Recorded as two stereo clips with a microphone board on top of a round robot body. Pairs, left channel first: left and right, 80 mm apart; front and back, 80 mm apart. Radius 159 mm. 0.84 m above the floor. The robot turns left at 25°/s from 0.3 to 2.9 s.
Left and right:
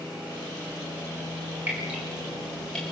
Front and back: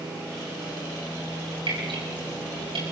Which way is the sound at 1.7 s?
160° right.